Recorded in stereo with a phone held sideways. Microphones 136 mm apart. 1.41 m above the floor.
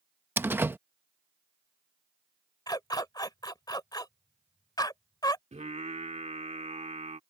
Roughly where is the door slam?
Centre.